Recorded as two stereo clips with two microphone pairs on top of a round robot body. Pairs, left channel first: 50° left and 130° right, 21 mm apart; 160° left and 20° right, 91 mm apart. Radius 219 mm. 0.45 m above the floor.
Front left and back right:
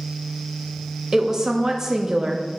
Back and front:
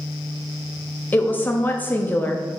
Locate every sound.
1.1 s a woman speaking: 160° right, 0.9 m